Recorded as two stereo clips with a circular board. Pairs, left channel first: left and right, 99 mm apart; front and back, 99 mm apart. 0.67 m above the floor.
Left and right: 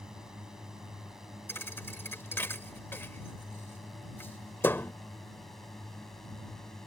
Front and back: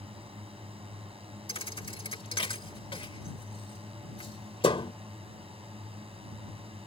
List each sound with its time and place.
0.0 s a drone: 175° right; by 6.9 s 175° left
1.5 s a thud: 25° left